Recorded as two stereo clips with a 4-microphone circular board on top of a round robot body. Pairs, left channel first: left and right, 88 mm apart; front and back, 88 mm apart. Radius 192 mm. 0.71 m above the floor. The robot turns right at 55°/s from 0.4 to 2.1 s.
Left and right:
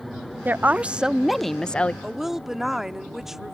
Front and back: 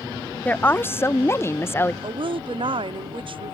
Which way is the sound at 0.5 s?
50° right.